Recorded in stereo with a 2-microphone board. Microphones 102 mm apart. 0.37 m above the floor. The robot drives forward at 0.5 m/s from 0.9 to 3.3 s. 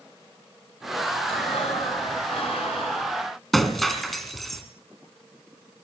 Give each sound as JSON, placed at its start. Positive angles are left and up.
{"t": 1.3, "sound": "breathing", "side_deg": 75, "distance_m": 5.0}
{"t": 3.5, "sound": "breaking glass", "side_deg": 0, "distance_m": 2.5}